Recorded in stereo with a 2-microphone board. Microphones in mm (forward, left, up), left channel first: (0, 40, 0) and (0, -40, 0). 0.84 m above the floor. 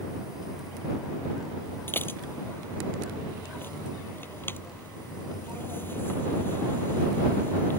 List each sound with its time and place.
1.9 s dishes clattering: 25° left (ahead or behind)